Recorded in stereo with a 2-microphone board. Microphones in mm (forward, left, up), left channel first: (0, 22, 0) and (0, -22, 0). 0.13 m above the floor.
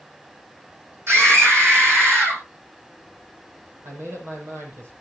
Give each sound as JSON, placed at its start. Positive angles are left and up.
{"t": 1.1, "sound": "a scream", "side_deg": -65, "distance_m": 6.0}
{"t": 3.8, "sound": "a man speaking", "side_deg": -70, "distance_m": 6.0}